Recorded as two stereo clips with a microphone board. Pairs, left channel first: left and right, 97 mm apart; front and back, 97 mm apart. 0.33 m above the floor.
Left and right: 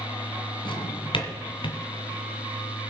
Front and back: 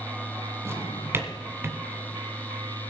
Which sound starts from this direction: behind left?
A drawer, at 0.7 s.